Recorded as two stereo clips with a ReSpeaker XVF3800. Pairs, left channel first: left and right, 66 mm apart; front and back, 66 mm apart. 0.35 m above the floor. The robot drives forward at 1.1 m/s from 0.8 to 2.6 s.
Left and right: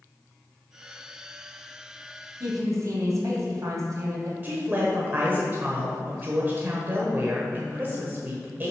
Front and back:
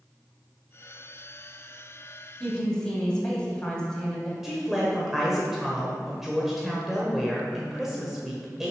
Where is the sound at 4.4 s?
100° right, 1.3 m.